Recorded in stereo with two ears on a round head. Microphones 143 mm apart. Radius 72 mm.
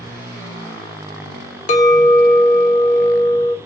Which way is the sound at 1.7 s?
50° left (ahead or behind).